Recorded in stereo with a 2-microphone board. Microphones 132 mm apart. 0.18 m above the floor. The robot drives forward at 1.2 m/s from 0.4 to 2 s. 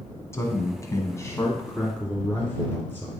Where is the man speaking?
20° left (ahead or behind), 1.5 m; by 3.1 s 15° left (ahead or behind), 1.9 m.